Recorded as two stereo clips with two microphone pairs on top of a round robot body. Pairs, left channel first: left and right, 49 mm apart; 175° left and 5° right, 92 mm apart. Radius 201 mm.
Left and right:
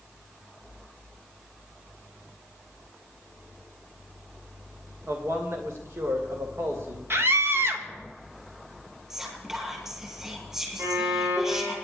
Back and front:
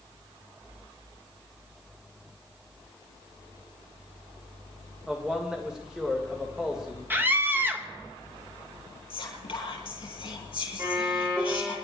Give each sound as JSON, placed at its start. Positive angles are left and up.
{"t": 5.1, "sound": "a man speaking", "azimuth_deg": -90, "distance_m": 2.5}
{"t": 7.1, "sound": "a scream", "azimuth_deg": -70, "distance_m": 2.5}
{"t": 9.1, "sound": "whispering", "azimuth_deg": -165, "distance_m": 8.0}
{"t": 10.8, "sound": "a violin", "azimuth_deg": -65, "distance_m": 10.0}